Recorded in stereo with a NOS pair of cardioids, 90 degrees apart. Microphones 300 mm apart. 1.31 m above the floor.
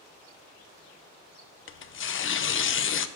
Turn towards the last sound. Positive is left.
turn(degrees=45)